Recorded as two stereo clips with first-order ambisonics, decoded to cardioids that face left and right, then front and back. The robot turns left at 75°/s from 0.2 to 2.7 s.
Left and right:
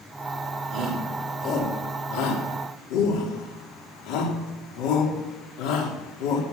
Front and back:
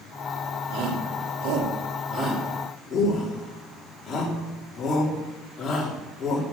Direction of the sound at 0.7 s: 140° right.